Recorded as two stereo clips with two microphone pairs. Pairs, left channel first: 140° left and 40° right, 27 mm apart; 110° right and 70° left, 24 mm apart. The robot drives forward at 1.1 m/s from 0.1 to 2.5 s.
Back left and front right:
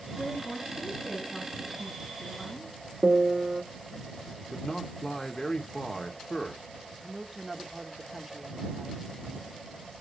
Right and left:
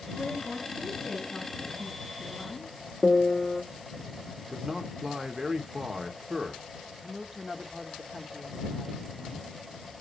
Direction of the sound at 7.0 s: 35° left.